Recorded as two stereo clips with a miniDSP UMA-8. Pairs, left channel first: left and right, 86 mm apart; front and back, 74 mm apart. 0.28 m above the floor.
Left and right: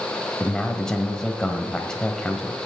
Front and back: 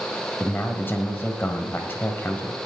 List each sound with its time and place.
0.4 s a man speaking: 15° left, 1.3 m